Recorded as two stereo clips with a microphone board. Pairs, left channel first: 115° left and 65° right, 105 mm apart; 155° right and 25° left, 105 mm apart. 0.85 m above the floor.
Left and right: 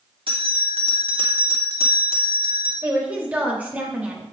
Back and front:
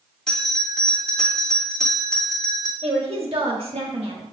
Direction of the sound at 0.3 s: 75° right.